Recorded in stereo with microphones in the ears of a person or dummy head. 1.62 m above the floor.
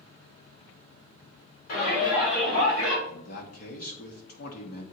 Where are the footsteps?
I don't hear footsteps.